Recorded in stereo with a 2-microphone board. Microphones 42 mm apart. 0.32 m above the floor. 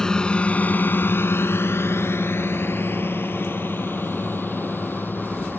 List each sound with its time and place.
0.0 s a drone: 15° left (ahead or behind); by 5.6 s 55° left (ahead or behind)